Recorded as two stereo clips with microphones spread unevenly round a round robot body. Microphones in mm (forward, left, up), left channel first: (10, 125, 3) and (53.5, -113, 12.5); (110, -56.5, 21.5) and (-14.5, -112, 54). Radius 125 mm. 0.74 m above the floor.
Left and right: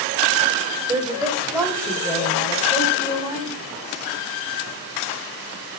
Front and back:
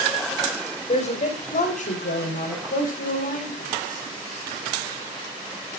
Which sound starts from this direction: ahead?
A woman speaking, at 0.9 s.